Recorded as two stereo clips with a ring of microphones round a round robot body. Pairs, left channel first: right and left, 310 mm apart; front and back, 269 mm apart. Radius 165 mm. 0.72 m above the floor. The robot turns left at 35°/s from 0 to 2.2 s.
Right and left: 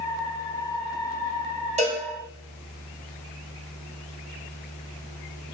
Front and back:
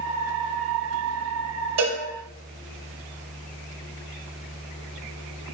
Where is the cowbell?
160° left, 4 m; by 2.0 s 150° left, 4 m.